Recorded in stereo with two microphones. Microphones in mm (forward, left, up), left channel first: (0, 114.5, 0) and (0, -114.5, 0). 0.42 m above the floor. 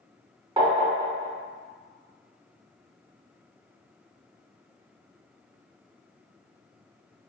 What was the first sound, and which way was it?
Tapping, 20° right (ahead or behind).